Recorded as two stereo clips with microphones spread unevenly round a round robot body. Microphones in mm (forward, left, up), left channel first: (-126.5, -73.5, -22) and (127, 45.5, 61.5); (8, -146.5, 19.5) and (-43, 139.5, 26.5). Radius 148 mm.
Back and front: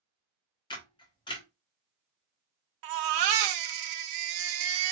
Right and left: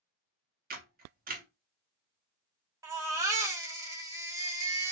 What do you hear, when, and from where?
0.7 s a camera shutter: 150° left, 1.2 m
2.8 s a baby crying: 20° left, 0.8 m